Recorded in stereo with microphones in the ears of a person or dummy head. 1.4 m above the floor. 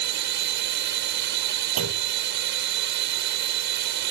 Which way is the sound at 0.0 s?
60° right (ahead or behind).